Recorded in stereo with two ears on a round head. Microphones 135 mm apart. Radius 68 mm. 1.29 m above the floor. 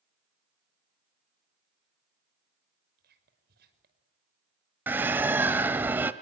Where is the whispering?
70° right (ahead or behind), 5.5 m.